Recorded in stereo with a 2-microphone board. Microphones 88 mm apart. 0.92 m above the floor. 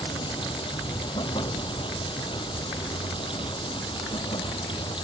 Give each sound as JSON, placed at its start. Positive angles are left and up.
{"t": 0.0, "sound": "running water", "side_deg": 70}